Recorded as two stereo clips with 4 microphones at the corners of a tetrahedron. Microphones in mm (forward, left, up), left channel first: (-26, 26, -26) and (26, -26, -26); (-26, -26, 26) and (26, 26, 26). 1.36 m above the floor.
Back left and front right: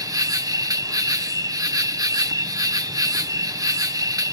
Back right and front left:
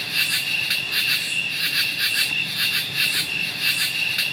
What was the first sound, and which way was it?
An insect, 45° right.